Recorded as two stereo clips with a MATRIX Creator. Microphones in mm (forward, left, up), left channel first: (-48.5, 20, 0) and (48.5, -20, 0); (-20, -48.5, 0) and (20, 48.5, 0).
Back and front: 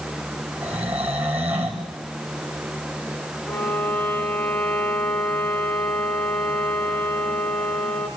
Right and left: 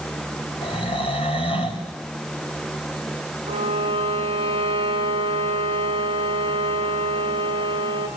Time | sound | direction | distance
0.6 | snoring | 95° right | 4.5 m
3.5 | a violin | 85° left | 3 m